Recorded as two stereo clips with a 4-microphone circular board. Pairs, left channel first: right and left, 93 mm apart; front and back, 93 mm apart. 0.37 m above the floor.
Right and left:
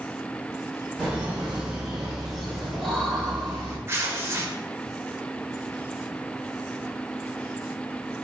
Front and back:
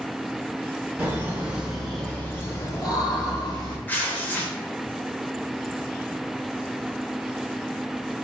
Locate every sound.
1.0 s laughter: 155° left, 0.9 m; by 3.8 s 10° right, 1.4 m
3.9 s tearing paper: 55° left, 0.6 m